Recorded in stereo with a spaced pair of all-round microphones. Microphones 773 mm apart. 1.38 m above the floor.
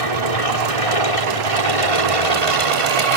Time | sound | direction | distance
0.0 | an aircraft | 45° left (ahead or behind) | ?